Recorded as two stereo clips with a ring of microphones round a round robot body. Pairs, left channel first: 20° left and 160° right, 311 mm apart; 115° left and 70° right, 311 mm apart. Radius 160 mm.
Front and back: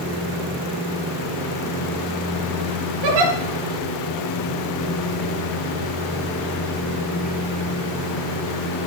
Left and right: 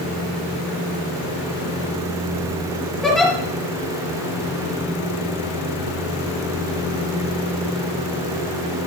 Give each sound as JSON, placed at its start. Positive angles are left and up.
{"t": 3.0, "sound": "a giggle", "azimuth_deg": -160, "distance_m": 3.5}